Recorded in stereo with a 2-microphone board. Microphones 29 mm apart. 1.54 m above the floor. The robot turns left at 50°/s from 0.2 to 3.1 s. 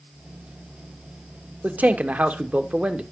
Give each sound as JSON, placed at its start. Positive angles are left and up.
{"t": 1.6, "sound": "a man speaking", "azimuth_deg": -75, "distance_m": 0.9}